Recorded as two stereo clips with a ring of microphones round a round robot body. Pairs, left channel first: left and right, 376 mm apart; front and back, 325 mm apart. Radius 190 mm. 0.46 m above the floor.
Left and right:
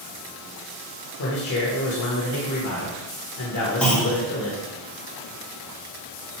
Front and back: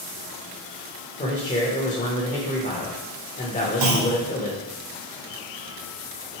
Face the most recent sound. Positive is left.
turn(degrees=175)